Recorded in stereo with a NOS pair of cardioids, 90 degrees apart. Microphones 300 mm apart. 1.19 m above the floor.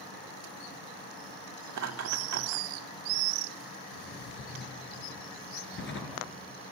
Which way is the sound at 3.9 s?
40° left.